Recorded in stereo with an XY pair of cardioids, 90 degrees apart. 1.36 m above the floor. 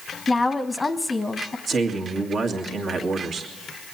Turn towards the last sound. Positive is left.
turn(degrees=-65)